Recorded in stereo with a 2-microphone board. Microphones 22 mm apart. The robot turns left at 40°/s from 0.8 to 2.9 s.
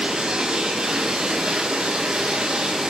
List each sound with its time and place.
0.0 s running water: 45° right, 9.5 m; by 2.9 s 125° right, 9.5 m